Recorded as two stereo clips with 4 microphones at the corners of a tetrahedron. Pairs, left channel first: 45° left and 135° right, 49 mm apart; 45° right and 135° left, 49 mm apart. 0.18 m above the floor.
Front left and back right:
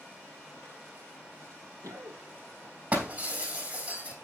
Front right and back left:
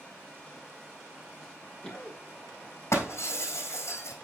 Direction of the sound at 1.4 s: 120° right.